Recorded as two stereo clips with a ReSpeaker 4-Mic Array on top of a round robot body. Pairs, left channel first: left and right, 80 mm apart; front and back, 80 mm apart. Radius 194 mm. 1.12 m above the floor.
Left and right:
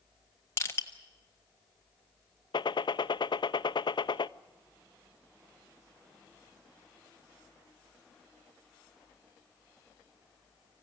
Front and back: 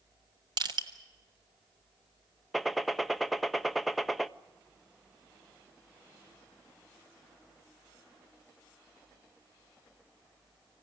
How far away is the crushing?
About 1.4 m.